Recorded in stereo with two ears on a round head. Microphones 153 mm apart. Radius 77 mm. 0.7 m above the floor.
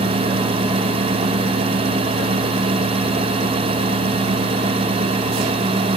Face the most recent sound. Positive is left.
No sound to turn to.